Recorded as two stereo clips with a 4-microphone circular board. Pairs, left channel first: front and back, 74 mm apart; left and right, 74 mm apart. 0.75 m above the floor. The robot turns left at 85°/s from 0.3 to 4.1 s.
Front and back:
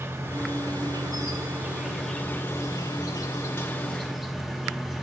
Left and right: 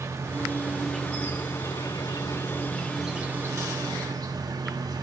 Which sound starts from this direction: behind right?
An insect, at 0.0 s.